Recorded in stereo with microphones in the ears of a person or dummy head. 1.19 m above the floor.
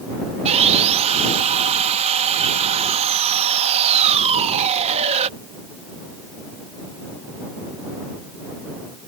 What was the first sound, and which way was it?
Sawing, 30° right (ahead or behind).